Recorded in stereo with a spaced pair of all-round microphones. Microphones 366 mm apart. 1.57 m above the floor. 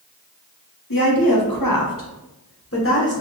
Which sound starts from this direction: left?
A woman speaking, at 0.9 s.